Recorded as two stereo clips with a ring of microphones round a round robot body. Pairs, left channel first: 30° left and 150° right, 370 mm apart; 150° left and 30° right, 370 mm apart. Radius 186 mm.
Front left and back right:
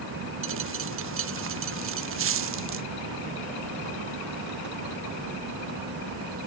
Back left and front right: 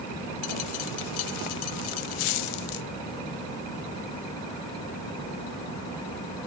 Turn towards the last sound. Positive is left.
turn(degrees=150)